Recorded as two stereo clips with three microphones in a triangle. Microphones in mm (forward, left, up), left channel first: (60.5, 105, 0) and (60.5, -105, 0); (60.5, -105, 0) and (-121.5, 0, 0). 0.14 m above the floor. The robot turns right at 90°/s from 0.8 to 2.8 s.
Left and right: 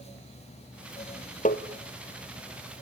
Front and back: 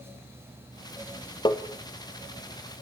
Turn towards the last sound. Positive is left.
turn(degrees=160)